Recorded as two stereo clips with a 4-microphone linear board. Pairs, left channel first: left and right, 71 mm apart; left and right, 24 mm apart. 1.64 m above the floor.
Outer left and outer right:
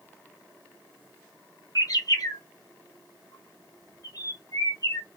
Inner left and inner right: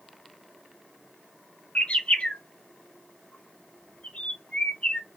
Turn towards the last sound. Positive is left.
turn(degrees=60)  # may be behind; listen again after turning